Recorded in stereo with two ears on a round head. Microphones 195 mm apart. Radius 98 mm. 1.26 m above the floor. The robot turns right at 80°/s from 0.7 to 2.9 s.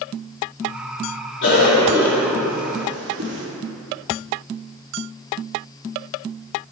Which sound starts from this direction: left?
A cough, at 1.4 s.